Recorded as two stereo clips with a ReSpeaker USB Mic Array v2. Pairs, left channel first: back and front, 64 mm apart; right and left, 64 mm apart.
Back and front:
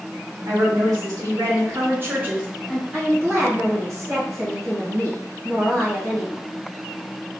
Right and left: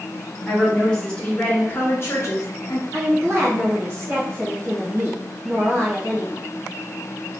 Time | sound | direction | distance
0.5 | a woman speaking | 5° right | 1.6 m
2.9 | a woman speaking | 45° left | 1.3 m